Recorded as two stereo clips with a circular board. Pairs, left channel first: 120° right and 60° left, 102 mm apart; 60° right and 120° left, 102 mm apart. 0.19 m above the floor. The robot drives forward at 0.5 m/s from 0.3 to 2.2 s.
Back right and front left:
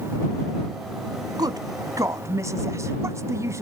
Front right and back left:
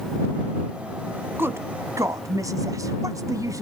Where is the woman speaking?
65° left, 1.2 m; by 3.6 s 95° left, 1.2 m.